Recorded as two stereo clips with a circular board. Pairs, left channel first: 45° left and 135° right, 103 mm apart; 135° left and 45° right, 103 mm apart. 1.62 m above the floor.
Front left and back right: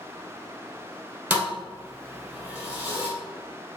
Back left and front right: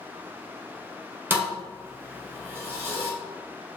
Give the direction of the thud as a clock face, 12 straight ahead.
3 o'clock.